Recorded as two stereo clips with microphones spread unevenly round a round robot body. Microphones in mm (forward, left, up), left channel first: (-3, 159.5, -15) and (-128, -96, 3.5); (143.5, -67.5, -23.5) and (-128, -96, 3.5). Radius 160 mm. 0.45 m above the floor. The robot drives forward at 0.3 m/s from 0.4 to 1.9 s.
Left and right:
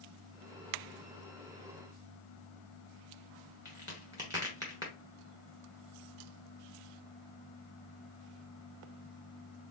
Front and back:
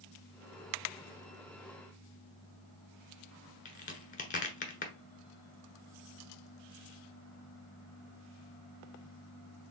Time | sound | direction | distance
3.6 | a crack | 35° right | 1.1 m